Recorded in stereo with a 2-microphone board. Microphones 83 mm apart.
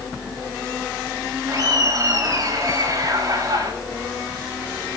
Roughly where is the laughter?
Right.